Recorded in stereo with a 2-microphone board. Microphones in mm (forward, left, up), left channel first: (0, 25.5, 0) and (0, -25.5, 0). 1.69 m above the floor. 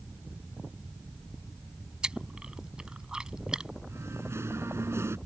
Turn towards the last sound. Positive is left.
turn(degrees=-60)  # may be behind; listen again after turning